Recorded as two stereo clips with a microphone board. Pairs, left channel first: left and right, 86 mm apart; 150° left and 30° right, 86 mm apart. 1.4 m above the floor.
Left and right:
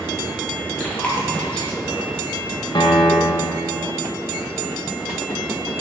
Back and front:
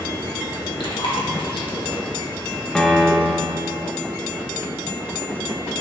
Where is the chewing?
165° left, 1.9 m.